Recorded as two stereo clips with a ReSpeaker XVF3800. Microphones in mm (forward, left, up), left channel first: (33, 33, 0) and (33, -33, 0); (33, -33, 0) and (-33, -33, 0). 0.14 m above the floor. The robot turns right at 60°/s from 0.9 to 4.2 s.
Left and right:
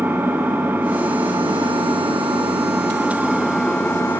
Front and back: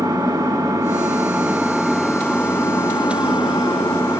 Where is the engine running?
155° right, 7.5 m; by 4.2 s 45° left, 7.5 m.